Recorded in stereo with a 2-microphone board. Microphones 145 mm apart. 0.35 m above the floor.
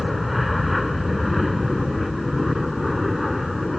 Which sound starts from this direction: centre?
An aircraft, at 0.0 s.